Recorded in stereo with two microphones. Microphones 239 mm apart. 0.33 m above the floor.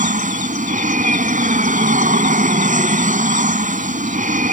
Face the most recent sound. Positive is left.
turn(degrees=-30)  # may be behind; listen again after turning